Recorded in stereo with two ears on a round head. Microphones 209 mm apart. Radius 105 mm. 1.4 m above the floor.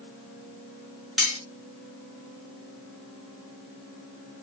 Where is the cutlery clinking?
Centre (ahead or behind), 2 m.